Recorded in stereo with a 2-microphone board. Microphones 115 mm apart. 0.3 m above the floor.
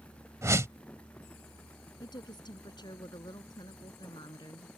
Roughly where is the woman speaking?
Left.